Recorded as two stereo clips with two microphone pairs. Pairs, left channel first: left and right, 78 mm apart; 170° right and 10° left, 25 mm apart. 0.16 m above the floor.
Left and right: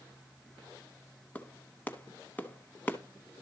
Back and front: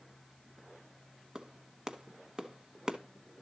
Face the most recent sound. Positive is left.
turn(degrees=40)